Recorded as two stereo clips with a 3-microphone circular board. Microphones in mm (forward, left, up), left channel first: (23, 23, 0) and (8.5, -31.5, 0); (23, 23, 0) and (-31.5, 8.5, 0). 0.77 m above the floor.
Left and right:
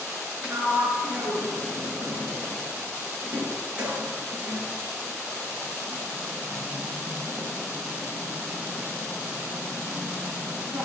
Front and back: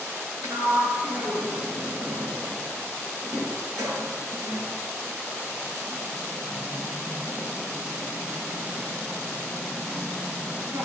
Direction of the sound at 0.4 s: 170° right.